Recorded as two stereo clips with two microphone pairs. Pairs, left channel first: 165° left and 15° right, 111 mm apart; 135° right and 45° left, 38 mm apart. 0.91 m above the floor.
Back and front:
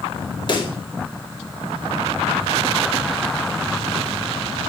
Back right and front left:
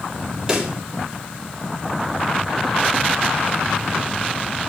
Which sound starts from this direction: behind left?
A pop, at 0.5 s.